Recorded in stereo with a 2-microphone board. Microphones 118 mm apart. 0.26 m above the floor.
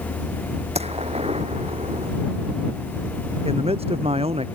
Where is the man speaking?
60° right (ahead or behind).